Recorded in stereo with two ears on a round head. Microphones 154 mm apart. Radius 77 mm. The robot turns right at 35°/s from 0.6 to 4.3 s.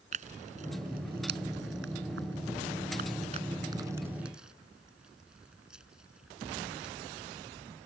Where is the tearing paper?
45° right (ahead or behind); by 7.0 s 5° right (ahead or behind).